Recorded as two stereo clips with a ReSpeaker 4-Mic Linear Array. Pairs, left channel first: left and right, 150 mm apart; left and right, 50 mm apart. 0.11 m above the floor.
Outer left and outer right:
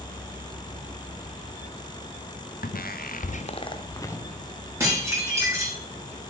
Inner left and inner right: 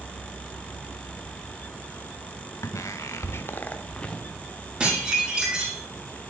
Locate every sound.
2.6 s footsteps: 75° left (ahead or behind), 0.9 m; by 4.2 s 15° left (ahead or behind), 1.4 m
4.8 s dishes clattering: 20° right (ahead or behind), 4.5 m